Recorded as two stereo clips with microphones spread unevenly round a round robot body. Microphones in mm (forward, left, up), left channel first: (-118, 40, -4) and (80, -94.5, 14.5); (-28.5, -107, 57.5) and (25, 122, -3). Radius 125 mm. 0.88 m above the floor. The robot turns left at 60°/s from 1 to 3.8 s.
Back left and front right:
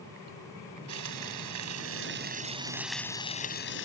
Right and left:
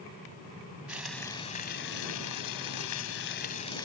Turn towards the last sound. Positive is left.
turn(degrees=-175)